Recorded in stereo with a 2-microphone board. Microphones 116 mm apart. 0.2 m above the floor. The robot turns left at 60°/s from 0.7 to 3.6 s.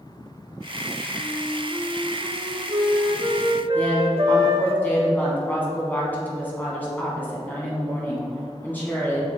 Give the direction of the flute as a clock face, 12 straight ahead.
11 o'clock.